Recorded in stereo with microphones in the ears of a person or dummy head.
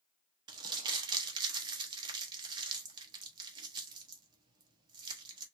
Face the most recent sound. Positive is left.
turn(degrees=-25)  # may be behind; listen again after turning